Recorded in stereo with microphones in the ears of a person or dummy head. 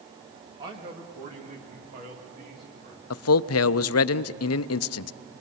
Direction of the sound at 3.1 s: 70° left (ahead or behind).